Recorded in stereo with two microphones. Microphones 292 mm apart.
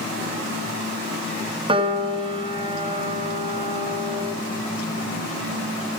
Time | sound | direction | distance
1.7 | a piano | 20° right (ahead or behind) | 0.7 m